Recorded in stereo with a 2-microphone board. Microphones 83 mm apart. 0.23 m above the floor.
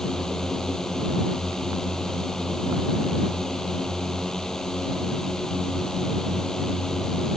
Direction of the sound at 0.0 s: 5° left (ahead or behind).